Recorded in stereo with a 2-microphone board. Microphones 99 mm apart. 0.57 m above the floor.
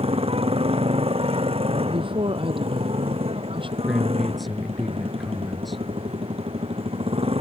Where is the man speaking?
Centre (ahead or behind).